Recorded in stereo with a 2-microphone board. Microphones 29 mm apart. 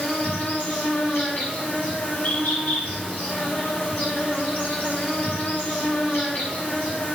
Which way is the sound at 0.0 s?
60° left (ahead or behind).